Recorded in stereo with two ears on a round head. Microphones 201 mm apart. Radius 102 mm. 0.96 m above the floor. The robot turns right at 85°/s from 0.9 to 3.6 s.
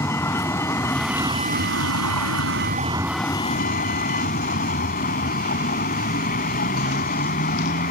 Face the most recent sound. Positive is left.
turn(degrees=35)